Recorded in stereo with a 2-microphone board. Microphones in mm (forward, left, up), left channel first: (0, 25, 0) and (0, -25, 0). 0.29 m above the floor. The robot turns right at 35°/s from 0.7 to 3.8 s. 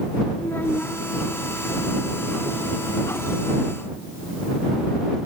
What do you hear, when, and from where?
0.4 s a child speaking: 45° left (ahead or behind); by 1.0 s 35° left (ahead or behind)